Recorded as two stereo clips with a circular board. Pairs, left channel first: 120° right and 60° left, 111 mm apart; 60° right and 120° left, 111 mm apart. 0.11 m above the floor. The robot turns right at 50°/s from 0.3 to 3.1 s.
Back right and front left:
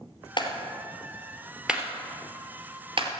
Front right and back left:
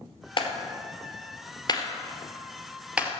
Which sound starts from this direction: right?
A clap, at 0.4 s.